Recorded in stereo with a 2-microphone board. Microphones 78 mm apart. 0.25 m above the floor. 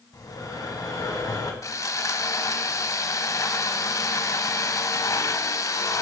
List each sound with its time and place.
0.1 s breathing: 50° left (ahead or behind), 1.6 m
1.6 s sawing: 45° left (ahead or behind), 0.6 m